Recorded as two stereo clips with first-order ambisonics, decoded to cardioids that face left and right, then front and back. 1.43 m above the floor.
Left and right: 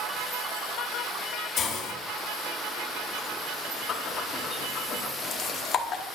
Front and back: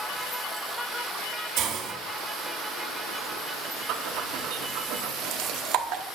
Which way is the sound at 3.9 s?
150° left.